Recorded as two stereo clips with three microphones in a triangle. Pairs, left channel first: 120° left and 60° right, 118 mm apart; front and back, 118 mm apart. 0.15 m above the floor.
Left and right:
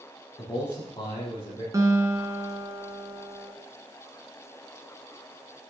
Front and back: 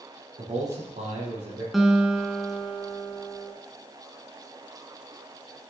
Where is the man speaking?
165° left, 4 m.